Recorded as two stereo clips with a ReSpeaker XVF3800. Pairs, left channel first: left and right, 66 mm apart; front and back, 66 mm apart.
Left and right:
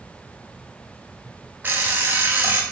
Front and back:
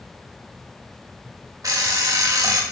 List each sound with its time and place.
1.6 s an alarm clock: 150° right, 0.7 m